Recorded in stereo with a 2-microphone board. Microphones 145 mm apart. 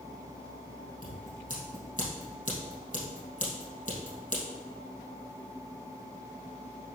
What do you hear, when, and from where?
1.0 s scissors: 65° left (ahead or behind), 3 m